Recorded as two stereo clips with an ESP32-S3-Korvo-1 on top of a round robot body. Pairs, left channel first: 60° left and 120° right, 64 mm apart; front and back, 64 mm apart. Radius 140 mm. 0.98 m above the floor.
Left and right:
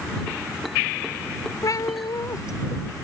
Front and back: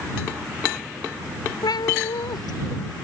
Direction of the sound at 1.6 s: 20° left.